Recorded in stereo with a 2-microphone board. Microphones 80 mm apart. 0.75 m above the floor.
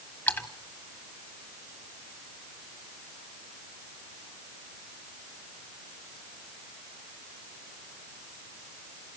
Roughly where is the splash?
Left.